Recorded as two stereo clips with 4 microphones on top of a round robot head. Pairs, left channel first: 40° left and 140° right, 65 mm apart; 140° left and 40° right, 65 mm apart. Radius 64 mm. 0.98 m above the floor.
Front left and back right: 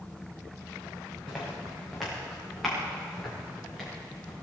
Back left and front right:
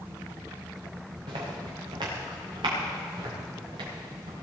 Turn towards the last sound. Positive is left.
turn(degrees=-45)